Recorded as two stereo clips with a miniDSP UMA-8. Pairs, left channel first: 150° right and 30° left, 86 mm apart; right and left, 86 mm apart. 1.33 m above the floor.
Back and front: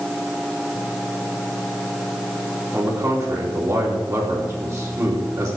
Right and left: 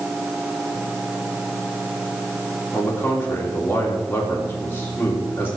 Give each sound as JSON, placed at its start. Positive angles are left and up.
{"t": 2.7, "sound": "a man speaking", "azimuth_deg": -25, "distance_m": 3.0}